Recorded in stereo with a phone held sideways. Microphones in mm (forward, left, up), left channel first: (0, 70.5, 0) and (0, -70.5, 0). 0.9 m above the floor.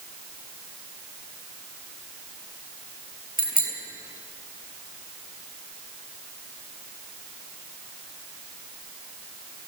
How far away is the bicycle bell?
About 6 m.